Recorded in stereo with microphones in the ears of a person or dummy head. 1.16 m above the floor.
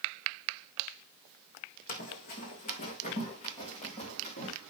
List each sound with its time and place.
1.9 s running footsteps: 45° left (ahead or behind), 2.5 m; by 4.5 s 40° left (ahead or behind), 5.5 m